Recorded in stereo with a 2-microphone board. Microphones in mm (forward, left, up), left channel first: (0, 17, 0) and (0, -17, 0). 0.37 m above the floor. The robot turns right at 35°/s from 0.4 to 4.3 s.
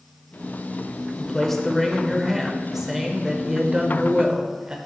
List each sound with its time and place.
1.2 s a man speaking: 15° left (ahead or behind), 1.1 m; by 4.8 s 25° right (ahead or behind), 1.1 m